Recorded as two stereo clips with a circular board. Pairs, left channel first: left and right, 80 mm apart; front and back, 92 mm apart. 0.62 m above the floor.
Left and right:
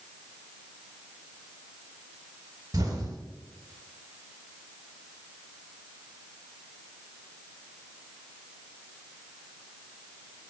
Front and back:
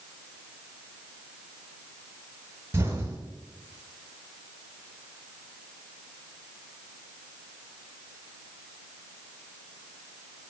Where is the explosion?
120° right, 1.1 m.